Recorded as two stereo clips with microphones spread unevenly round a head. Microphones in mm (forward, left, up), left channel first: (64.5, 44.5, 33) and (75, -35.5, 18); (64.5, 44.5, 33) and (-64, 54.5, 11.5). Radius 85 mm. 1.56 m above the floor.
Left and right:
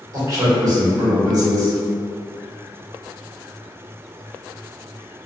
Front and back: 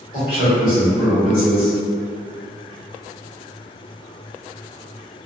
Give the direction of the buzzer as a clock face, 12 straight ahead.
I don't hear a buzzer.